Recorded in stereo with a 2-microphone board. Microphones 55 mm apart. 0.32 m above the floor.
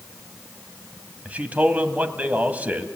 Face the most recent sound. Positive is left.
turn(degrees=-25)  # may be behind; listen again after turning